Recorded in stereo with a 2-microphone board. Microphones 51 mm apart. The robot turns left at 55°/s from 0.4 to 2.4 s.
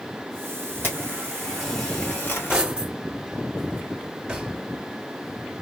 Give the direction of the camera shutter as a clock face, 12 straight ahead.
5 o'clock.